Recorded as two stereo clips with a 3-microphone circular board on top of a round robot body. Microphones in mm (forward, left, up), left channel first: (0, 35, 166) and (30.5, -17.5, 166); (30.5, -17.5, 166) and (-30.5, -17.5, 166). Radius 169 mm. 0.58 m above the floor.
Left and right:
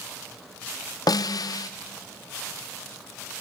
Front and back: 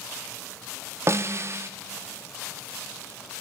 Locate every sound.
1.1 s a snare drum: 135° left, 0.5 m